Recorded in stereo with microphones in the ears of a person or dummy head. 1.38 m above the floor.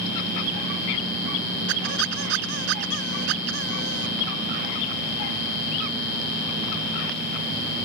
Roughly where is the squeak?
Right.